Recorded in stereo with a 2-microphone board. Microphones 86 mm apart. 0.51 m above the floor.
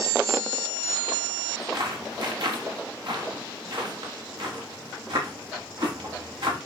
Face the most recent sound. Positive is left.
turn(degrees=-70)  # may be behind; listen again after turning